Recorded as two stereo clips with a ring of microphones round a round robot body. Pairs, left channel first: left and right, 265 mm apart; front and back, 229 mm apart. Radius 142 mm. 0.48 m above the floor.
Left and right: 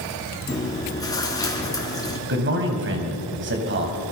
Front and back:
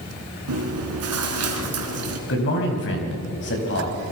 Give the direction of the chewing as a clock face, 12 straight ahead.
6 o'clock.